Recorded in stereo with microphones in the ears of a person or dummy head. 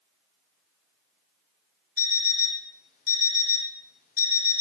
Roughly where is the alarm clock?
Left.